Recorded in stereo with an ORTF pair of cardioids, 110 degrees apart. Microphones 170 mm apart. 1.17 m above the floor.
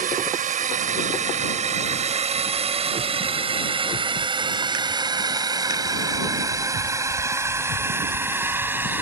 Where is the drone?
55° right; by 9.0 s 10° right.